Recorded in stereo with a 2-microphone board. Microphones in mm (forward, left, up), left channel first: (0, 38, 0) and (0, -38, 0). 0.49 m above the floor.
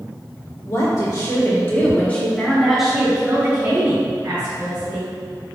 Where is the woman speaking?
50° left (ahead or behind), 1.7 m; by 5.1 s 55° right (ahead or behind), 1.9 m.